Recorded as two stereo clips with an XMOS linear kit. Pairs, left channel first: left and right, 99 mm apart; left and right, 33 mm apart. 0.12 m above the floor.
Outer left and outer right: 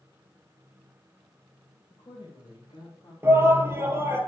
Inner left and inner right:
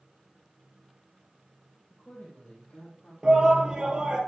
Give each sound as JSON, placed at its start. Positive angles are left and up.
{"t": 1.9, "sound": "a woman speaking", "side_deg": 55, "distance_m": 3.0}
{"t": 3.2, "sound": "a shout", "side_deg": -25, "distance_m": 2.5}